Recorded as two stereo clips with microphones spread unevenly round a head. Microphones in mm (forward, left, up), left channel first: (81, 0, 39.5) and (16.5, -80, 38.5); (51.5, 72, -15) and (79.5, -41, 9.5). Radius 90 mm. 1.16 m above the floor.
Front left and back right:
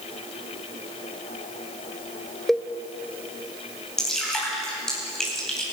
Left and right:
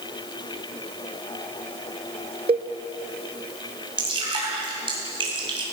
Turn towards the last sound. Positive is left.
turn(degrees=-35)